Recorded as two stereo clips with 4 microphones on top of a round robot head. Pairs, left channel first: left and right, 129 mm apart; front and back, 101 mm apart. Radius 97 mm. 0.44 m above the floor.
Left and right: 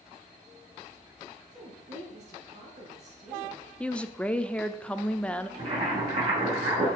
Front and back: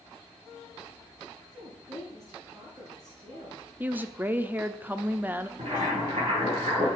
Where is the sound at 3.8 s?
150° left, 0.8 m.